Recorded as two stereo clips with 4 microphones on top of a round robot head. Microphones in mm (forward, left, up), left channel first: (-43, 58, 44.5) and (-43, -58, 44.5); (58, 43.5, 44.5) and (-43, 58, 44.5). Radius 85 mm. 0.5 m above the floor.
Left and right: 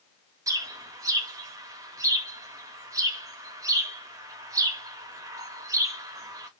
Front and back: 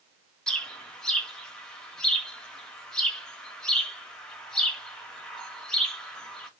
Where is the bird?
85° right, 1.1 m.